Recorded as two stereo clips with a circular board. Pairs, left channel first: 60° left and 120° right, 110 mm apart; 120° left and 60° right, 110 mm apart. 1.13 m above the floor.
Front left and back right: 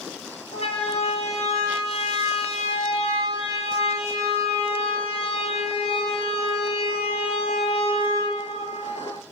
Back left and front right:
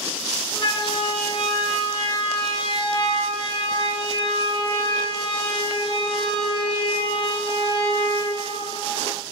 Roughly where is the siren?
Left.